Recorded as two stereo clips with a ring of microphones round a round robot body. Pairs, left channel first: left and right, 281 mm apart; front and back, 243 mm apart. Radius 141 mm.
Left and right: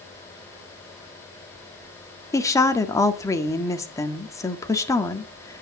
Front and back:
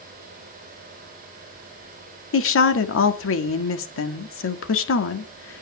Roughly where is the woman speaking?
Ahead.